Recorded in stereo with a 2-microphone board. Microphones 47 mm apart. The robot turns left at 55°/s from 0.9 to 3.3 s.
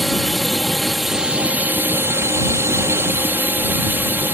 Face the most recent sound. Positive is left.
turn(degrees=-130)